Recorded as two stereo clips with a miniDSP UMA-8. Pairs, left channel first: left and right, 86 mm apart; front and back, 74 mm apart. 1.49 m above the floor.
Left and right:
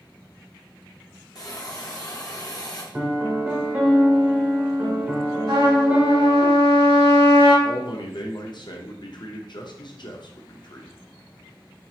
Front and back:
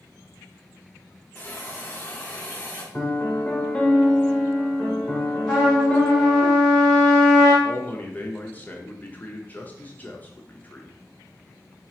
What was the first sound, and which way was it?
A hiss, 60° left.